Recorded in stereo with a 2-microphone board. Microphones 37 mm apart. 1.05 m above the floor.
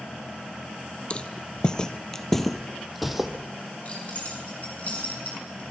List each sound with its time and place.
1.1 s footsteps: 30° left (ahead or behind), 1.3 m; by 3.3 s 5° right (ahead or behind), 1.7 m
3.9 s keys jangling: 40° left (ahead or behind), 7 m